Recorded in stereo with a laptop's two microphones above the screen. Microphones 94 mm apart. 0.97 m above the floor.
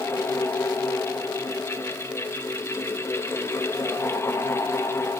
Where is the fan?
25° left (ahead or behind), 1.0 m.